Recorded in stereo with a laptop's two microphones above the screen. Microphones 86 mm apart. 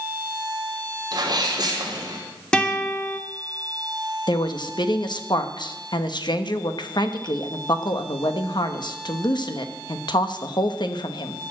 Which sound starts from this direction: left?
A woman speaking, at 4.3 s.